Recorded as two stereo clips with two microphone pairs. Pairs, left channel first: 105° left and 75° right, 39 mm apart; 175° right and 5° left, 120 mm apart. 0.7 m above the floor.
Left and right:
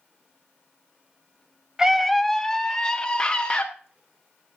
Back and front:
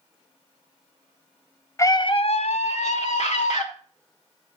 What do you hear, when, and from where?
1.8 s a scream: 135° right, 0.6 m; by 3.7 s 175° left, 1.9 m